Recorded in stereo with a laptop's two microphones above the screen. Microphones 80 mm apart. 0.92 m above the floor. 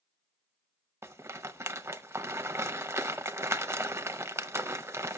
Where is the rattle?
35° right (ahead or behind), 0.6 m.